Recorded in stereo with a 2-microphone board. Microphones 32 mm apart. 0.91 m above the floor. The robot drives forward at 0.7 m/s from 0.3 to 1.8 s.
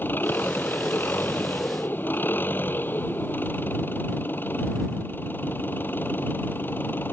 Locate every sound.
0.0 s an engine running: 80° left; by 7.1 s 85° left